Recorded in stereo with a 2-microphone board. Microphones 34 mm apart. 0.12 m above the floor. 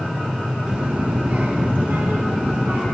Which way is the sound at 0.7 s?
30° right (ahead or behind).